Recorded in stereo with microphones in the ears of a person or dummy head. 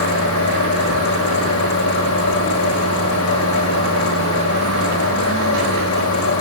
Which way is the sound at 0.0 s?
85° left.